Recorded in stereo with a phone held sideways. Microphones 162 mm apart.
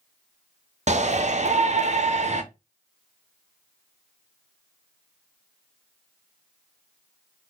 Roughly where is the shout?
Right.